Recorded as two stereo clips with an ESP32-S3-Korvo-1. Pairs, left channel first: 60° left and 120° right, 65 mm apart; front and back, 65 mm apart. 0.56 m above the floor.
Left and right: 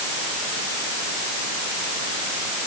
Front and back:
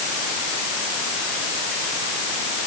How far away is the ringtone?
I don't hear a ringtone.